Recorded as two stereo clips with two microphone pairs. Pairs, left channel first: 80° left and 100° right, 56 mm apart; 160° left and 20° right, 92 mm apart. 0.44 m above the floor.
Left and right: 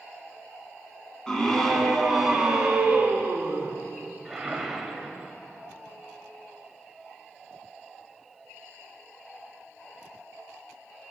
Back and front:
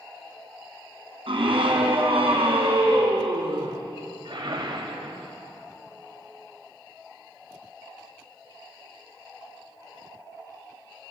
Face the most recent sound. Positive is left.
turn(degrees=-20)